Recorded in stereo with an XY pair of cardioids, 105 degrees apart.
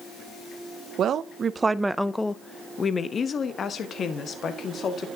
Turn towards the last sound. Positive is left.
turn(degrees=55)